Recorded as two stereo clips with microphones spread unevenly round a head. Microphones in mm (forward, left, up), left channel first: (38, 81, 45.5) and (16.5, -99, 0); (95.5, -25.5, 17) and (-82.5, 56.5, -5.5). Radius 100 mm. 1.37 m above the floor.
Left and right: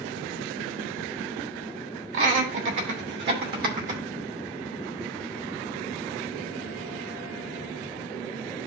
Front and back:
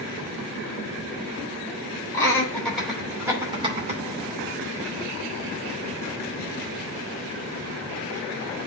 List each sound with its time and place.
2.1 s laughter: 100° right, 3 m; by 4.0 s 150° right, 2.5 m